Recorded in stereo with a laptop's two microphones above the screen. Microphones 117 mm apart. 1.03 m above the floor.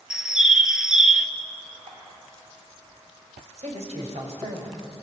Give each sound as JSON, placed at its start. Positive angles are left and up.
{"t": 0.1, "sound": "a bird", "side_deg": -5, "distance_m": 1.2}
{"t": 1.9, "sound": "dripping", "side_deg": -55, "distance_m": 5.5}
{"t": 3.6, "sound": "a man speaking", "side_deg": -75, "distance_m": 6.0}